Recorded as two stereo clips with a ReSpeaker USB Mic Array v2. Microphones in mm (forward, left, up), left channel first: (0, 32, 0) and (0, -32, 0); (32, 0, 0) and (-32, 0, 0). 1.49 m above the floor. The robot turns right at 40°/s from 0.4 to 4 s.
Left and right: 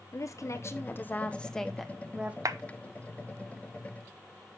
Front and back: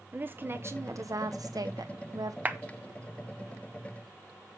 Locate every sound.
0.1 s a woman speaking: 125° left, 1.2 m; by 2.4 s 160° right, 1.2 m
2.5 s a clap: 115° right, 0.9 m; by 2.6 s 110° right, 0.9 m